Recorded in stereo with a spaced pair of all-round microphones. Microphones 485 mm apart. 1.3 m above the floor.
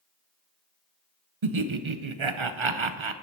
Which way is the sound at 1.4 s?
75° right (ahead or behind).